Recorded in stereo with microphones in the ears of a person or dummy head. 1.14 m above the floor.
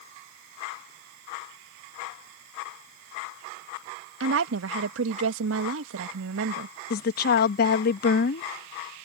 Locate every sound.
4.2 s a woman speaking: 80° right
6.9 s a woman speaking: 60° left (ahead or behind)